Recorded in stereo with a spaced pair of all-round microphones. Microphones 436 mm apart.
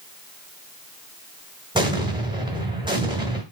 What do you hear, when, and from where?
1.8 s an explosion: 10° right (ahead or behind), 1.6 m